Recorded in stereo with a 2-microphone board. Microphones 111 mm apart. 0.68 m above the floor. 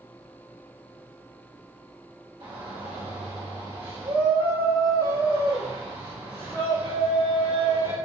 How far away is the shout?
About 1.2 m.